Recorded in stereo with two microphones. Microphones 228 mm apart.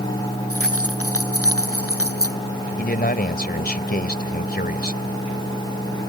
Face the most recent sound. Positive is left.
turn(degrees=45)  # may be behind; listen again after turning